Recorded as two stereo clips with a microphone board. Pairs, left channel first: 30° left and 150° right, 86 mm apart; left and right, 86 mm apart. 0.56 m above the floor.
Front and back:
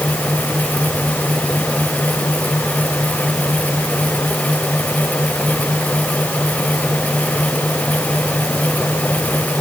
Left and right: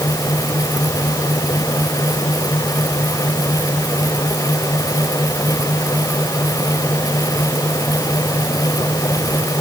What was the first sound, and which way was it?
Only background noise.